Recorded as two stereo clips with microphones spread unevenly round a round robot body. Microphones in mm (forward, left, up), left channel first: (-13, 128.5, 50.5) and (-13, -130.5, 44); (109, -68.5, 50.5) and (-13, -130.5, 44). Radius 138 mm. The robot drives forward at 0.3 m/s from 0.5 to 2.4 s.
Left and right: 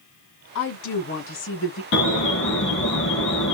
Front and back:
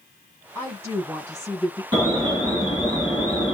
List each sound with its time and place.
0.6 s a woman speaking: 130° left, 3 m; by 1.8 s 135° left, 3 m
1.9 s an alarm: 135° left, 4 m; by 3.5 s 140° left, 4.5 m